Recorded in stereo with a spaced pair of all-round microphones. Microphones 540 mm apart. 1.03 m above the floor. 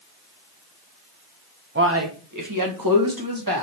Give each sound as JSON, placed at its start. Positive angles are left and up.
{"t": 1.8, "sound": "a man speaking", "side_deg": -20, "distance_m": 0.7}